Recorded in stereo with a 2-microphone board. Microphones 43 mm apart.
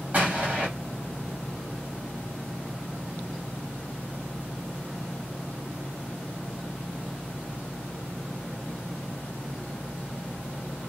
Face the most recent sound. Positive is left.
turn(degrees=-35)  # may be behind; listen again after turning